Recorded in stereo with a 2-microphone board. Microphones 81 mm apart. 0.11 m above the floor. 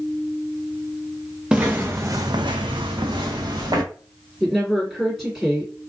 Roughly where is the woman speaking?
Centre.